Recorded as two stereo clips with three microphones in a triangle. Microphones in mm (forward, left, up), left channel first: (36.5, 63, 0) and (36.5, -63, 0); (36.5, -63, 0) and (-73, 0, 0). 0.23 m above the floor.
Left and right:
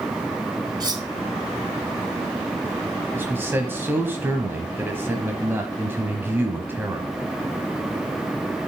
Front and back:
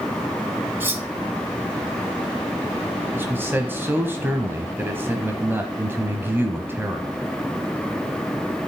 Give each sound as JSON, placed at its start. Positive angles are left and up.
{"t": 0.8, "sound": "cutlery clinking", "azimuth_deg": -140, "distance_m": 1.4}
{"t": 3.1, "sound": "a man speaking", "azimuth_deg": -150, "distance_m": 1.1}